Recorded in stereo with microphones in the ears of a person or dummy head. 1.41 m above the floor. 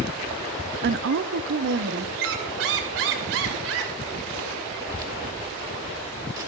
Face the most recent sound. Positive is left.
turn(degrees=-20)  # may be behind; listen again after turning